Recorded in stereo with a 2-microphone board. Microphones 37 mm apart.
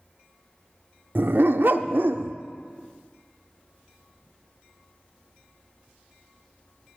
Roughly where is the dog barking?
Right.